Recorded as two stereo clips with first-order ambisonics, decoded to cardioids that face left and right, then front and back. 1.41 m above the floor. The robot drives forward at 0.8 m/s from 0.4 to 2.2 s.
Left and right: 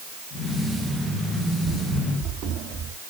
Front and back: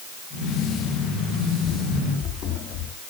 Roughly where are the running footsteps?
Ahead right.